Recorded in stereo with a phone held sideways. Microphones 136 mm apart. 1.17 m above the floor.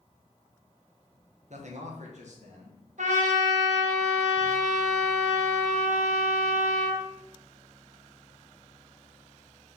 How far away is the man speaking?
About 0.7 m.